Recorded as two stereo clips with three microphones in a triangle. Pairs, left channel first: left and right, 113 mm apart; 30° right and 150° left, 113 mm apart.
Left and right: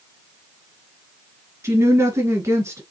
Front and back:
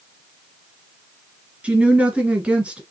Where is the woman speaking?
135° right, 1.6 m.